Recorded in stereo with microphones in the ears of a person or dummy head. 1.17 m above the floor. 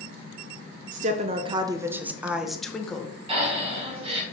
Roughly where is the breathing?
Right.